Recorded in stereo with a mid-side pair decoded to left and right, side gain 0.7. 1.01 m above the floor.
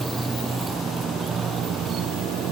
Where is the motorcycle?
15° right; by 2.5 s 50° right.